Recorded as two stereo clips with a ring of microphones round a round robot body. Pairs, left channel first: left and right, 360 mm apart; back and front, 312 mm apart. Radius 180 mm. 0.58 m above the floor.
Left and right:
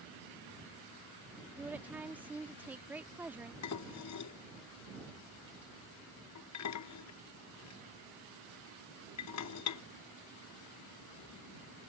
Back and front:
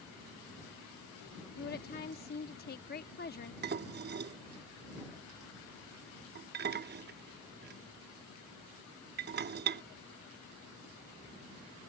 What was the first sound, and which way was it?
A woman speaking, 170° right.